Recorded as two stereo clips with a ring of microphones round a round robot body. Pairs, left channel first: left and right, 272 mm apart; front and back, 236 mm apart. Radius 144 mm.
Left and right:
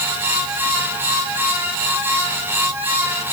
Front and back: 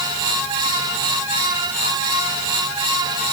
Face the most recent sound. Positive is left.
No sound to turn to.